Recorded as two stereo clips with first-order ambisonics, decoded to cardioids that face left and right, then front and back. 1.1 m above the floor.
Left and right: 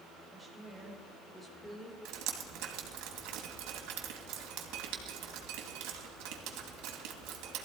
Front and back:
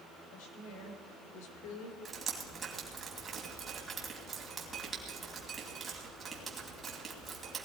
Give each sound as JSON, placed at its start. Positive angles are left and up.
{"t": 0.3, "sound": "a woman speaking", "azimuth_deg": 0, "distance_m": 4.0}
{"t": 2.0, "sound": "dripping", "azimuth_deg": -110, "distance_m": 2.5}